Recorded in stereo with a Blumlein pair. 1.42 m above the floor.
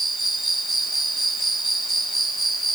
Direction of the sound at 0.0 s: 5° right.